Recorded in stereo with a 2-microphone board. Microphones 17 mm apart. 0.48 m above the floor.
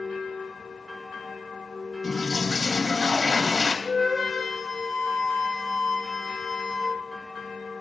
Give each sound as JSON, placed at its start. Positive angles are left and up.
{"t": 2.0, "sound": "a toilet flushing", "side_deg": 40, "distance_m": 2.5}
{"t": 3.9, "sound": "a flute", "side_deg": -10, "distance_m": 6.5}